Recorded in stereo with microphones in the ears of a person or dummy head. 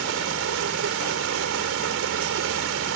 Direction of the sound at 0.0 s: 65° right (ahead or behind).